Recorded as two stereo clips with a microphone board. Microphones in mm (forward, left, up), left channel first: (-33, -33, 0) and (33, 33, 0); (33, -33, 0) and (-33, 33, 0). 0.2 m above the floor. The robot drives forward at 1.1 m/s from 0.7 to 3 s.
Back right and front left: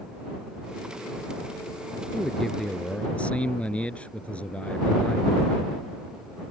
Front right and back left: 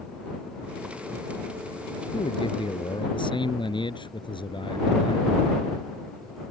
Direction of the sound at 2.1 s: 45° right.